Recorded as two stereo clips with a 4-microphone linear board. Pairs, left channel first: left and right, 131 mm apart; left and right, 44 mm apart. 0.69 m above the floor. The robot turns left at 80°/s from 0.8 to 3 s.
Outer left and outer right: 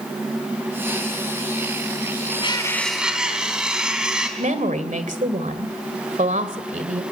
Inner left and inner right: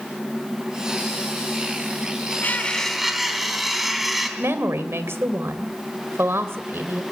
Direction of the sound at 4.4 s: 75° right (ahead or behind).